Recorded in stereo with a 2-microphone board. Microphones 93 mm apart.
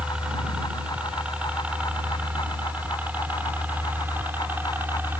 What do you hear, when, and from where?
0.0 s a helicopter: 10° right (ahead or behind); by 5.2 s 20° right (ahead or behind)